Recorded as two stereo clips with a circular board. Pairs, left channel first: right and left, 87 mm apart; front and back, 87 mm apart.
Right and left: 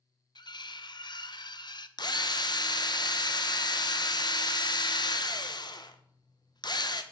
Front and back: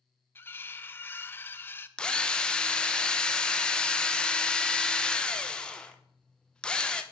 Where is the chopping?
No chopping in this recording.